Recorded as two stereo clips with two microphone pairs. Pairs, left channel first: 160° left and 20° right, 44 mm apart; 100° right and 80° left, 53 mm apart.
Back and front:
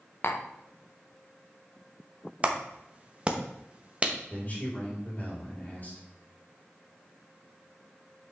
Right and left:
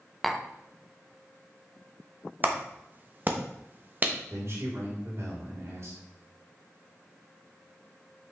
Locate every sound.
0.2 s tapping: 170° left, 0.7 m
2.4 s a clap: 35° left, 0.9 m
4.3 s a man speaking: 110° left, 4 m